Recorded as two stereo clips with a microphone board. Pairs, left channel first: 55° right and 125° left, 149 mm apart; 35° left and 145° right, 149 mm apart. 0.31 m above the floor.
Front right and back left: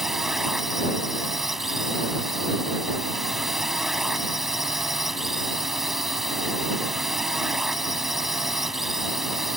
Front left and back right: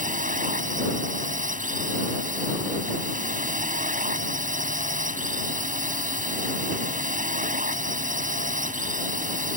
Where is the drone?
150° right.